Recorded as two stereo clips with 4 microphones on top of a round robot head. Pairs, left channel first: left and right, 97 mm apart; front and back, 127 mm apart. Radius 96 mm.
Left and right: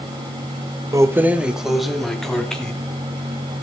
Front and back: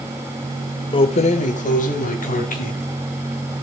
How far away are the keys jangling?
About 0.8 m.